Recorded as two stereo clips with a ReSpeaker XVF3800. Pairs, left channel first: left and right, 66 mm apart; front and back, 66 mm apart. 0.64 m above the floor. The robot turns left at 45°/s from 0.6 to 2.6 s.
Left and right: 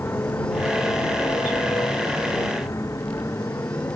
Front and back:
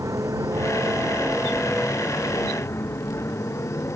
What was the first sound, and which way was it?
A motorcycle, 145° left.